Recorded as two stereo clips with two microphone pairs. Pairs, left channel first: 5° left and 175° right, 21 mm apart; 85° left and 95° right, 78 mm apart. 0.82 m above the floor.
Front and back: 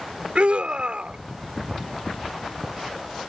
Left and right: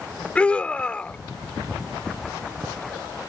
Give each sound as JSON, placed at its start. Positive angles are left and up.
{"t": 0.3, "sound": "a scream", "azimuth_deg": 160}